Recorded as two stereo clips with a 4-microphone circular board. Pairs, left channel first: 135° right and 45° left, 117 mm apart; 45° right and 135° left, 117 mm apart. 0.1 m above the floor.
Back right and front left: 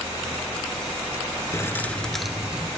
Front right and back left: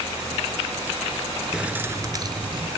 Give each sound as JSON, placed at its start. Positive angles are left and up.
{"t": 1.5, "sound": "keys jangling", "azimuth_deg": -150, "distance_m": 1.1}